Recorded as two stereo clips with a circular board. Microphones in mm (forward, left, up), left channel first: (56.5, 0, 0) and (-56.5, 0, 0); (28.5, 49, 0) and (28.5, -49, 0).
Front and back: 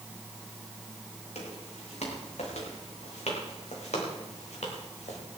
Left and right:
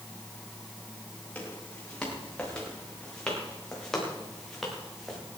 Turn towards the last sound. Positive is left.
turn(degrees=0)